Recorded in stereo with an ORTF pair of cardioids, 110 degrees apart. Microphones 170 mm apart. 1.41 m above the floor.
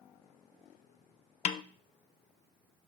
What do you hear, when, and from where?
1.4 s a snare drum: 45° left, 0.5 m